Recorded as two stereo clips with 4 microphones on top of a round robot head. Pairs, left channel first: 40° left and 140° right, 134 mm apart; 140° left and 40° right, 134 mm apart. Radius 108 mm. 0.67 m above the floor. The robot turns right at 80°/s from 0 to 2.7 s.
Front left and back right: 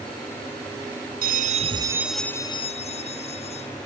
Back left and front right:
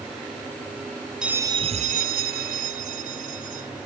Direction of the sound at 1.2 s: 125° right.